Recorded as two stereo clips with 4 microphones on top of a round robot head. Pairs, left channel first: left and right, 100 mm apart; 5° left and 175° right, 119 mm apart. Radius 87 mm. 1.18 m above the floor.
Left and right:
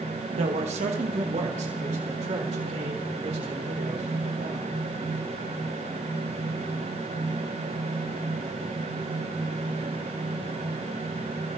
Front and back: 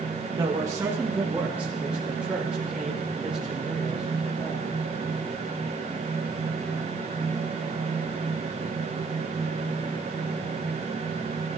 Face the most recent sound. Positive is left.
turn(degrees=-90)